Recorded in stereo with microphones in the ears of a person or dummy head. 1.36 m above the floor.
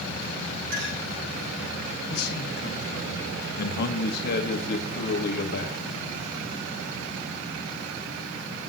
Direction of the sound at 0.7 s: 55° right (ahead or behind).